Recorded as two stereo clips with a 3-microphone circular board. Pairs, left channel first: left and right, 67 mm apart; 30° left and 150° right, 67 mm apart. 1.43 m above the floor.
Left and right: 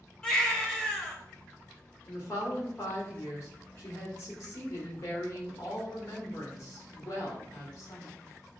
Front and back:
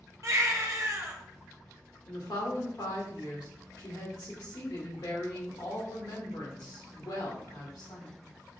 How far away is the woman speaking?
About 1.5 m.